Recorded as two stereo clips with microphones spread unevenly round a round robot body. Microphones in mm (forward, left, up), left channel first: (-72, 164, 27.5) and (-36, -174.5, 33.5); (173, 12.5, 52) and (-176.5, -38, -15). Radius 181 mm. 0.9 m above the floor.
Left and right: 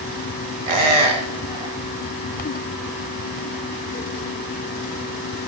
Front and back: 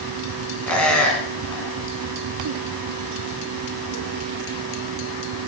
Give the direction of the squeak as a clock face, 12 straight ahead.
2 o'clock.